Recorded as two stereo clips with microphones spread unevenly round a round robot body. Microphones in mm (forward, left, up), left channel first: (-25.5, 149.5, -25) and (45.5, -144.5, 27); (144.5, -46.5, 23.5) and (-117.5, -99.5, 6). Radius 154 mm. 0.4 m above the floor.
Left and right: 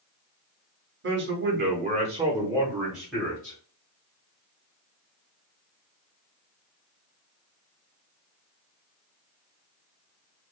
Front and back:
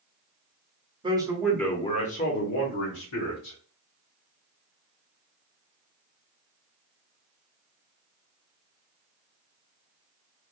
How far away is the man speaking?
About 0.9 m.